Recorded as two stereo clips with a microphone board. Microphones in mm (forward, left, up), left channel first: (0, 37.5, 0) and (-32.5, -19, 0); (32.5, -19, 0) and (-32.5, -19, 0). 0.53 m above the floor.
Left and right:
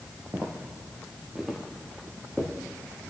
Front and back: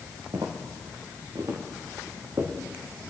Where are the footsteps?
Straight behind, 3 m; by 2.5 s 145° left, 3.5 m.